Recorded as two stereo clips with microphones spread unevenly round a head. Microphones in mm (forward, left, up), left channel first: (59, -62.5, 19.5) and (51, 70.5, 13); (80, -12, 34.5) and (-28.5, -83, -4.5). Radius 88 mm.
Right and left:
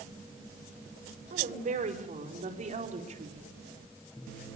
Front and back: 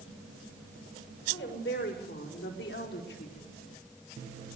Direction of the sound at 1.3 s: 65° left.